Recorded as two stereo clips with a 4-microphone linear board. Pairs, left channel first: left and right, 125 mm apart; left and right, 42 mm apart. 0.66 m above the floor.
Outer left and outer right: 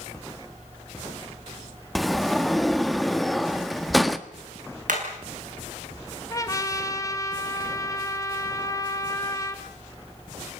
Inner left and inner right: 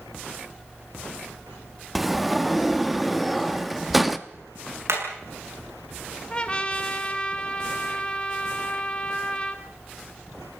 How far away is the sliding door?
About 1.2 m.